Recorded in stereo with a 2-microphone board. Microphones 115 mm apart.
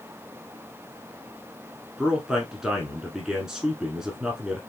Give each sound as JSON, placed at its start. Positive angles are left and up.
{"t": 2.0, "sound": "a man speaking", "side_deg": -5, "distance_m": 1.1}